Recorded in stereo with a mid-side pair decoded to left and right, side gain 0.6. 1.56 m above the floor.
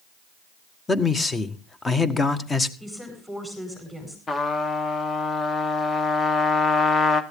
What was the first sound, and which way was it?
A man speaking, 25° left.